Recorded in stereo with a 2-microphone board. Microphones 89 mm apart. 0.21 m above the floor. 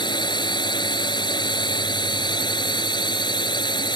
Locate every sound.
0.0 s a drone: 55° left (ahead or behind)